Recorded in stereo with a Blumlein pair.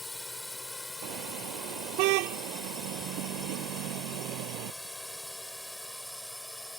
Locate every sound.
0.0 s a drone: 5° left; by 6.8 s straight ahead
1.0 s a car horn: 45° right